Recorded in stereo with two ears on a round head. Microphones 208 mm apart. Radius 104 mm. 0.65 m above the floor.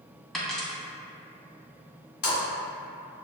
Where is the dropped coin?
Centre (ahead or behind), 0.8 m.